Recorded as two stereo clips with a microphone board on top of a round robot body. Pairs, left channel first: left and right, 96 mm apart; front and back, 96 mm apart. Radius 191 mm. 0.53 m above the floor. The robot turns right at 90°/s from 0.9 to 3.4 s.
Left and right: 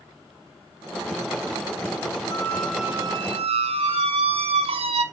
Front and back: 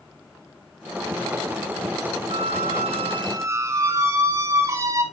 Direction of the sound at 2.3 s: 145° left.